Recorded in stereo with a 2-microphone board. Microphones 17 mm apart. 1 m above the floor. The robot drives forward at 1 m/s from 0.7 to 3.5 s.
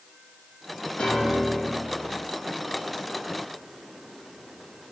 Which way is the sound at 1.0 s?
65° left (ahead or behind).